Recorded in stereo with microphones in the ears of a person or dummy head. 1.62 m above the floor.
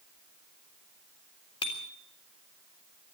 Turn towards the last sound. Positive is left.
turn(degrees=25)  # may be behind; listen again after turning